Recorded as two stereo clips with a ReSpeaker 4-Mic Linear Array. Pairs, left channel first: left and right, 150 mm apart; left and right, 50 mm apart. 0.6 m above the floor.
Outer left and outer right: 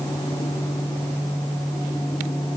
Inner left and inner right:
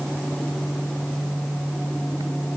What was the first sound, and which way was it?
Only background noise.